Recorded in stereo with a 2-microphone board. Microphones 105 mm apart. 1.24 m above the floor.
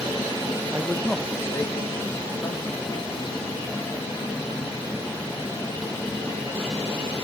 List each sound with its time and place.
0.7 s a man speaking: 15° right (ahead or behind), 0.9 m; by 7.1 s 60° left (ahead or behind), 8 m